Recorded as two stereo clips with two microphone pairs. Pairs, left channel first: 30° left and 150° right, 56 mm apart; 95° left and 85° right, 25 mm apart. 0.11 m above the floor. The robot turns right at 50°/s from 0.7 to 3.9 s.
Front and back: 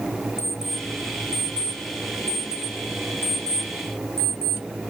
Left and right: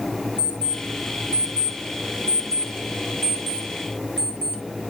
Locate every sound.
0.4 s an alarm clock: 125° right, 4.5 m; by 4.6 s 35° left, 4.5 m